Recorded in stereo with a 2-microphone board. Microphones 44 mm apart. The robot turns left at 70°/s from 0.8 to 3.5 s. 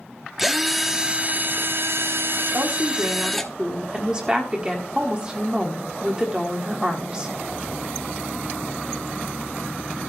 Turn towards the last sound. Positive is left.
turn(degrees=-155)